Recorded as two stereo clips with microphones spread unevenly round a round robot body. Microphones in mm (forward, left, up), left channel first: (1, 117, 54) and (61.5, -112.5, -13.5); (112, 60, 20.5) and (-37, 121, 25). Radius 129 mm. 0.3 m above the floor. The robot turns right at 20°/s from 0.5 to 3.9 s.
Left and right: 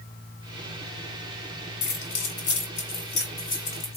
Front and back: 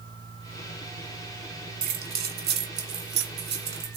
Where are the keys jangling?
135° left, 2 m; by 4.0 s 175° left, 2 m.